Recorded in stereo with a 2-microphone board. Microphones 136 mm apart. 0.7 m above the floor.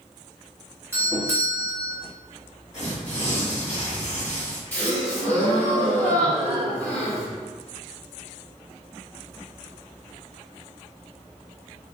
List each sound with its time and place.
0.9 s a doorbell: 20° right (ahead or behind), 1.0 m
2.7 s tearing paper: 55° left (ahead or behind), 1.4 m
4.7 s a gasp: 15° left (ahead or behind), 1.6 m